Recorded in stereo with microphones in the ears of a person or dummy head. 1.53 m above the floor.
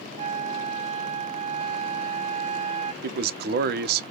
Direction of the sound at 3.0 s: 60° right (ahead or behind).